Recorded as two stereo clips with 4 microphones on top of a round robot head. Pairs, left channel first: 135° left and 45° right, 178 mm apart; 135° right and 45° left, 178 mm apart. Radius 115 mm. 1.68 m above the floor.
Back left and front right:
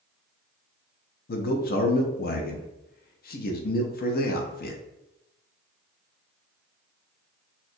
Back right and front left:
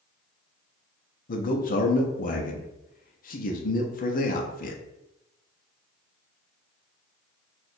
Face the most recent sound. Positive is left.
turn(degrees=175)